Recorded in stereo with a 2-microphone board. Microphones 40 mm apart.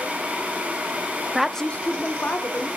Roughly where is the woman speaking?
Centre.